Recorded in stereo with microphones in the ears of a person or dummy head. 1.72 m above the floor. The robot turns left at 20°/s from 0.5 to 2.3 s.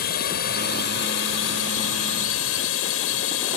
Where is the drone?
125° left; by 3.6 s 90° left.